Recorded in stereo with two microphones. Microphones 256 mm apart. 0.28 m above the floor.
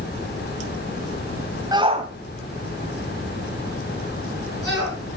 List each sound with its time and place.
1.7 s a shout: 15° right (ahead or behind), 1.6 m; by 5.0 s 60° right (ahead or behind), 5.5 m